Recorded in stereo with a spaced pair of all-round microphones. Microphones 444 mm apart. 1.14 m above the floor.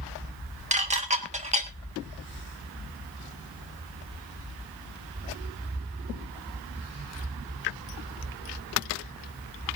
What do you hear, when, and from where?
0.7 s dishes clattering: 15° right (ahead or behind), 1.4 m